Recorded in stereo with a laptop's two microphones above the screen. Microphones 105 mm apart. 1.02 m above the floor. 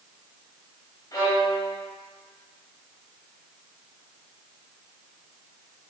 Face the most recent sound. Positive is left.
turn(degrees=40)  # may be behind; listen again after turning